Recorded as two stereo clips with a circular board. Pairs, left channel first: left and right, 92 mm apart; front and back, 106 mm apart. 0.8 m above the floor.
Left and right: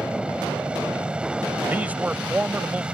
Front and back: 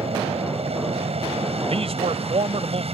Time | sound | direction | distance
0.0 | an aircraft | 170° right | ?
1.7 | a man speaking | 165° right | ?